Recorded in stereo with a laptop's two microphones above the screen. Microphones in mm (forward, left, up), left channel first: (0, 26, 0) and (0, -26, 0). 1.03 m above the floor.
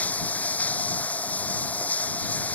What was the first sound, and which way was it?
Running water, 30° left (ahead or behind).